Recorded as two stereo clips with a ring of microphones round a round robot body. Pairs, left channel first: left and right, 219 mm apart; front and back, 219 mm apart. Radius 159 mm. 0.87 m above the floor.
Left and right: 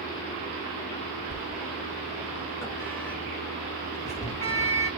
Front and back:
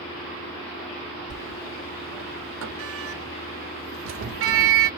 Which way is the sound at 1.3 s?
170° left.